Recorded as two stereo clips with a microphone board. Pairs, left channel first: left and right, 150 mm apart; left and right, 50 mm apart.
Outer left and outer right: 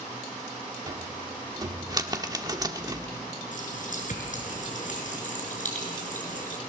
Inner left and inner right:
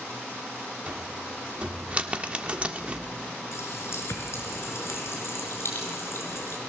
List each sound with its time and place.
0.9 s a cupboard door: 25° right (ahead or behind), 1.4 m
3.5 s a running tap: 60° left (ahead or behind), 5 m